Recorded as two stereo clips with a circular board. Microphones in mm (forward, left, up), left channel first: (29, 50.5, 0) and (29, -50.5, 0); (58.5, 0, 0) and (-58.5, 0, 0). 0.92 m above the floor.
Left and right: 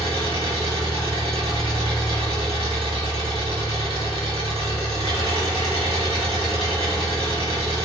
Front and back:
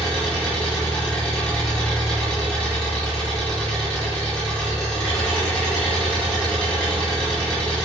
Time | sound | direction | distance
0.0 | an engine running | 80° right | 1.5 m